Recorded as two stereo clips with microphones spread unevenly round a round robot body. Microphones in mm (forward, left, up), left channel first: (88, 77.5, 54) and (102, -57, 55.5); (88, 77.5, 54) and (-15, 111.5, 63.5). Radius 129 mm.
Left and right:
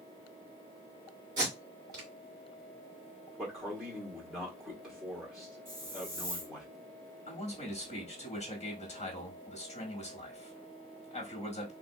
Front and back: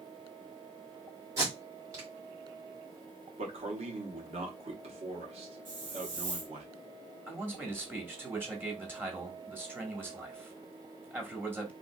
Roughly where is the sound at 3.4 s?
Behind.